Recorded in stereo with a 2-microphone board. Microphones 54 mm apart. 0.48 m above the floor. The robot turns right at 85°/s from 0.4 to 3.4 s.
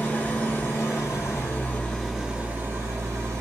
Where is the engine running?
35° left, 1.7 m; by 3.4 s 70° right, 1.7 m.